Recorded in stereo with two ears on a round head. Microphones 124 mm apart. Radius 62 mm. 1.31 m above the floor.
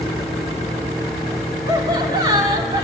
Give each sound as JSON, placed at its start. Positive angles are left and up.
{"t": 1.7, "sound": "laughter", "side_deg": -30, "distance_m": 3.5}